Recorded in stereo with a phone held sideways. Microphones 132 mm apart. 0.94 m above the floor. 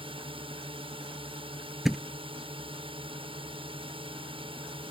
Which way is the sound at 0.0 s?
45° right (ahead or behind).